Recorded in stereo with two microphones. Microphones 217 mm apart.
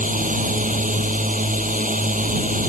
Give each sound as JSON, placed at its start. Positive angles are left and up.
{"t": 0.0, "sound": "a drone", "side_deg": -35}